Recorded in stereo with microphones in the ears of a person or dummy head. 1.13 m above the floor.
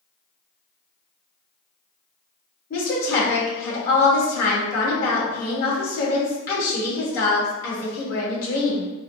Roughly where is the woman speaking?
Left.